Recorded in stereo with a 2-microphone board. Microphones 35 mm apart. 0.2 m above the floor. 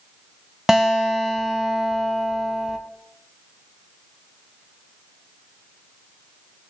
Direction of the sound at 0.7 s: 15° right (ahead or behind).